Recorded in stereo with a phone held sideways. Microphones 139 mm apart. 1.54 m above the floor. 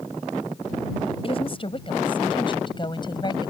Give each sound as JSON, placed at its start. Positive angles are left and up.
{"t": 1.2, "sound": "a woman speaking", "side_deg": 40}